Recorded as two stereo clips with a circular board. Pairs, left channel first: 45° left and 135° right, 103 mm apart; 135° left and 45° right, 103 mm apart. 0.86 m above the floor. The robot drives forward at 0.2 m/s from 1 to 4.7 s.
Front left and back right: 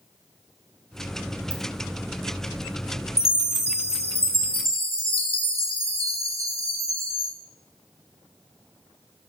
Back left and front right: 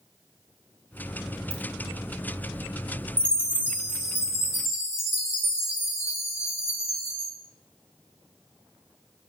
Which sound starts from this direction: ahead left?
A chime, at 3.2 s.